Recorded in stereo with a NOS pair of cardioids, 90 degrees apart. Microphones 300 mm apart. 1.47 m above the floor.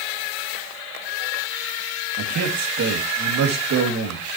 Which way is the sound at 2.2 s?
60° right.